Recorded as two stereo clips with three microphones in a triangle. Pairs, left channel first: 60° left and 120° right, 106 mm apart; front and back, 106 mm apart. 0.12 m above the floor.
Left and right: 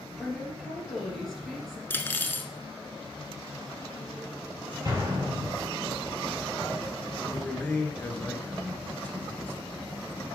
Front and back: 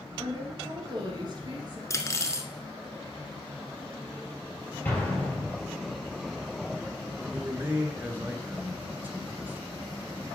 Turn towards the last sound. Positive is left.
turn(degrees=120)